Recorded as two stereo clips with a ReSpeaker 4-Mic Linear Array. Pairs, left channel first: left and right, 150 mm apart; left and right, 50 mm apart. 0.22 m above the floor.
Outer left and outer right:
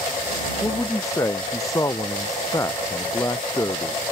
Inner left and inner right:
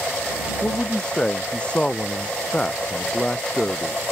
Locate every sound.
0.6 s a man speaking: 20° left (ahead or behind)